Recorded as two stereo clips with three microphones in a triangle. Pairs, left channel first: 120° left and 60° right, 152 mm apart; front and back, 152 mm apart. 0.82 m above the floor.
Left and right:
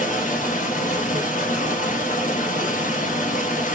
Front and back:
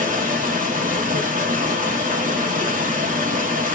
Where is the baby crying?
No baby crying in this recording.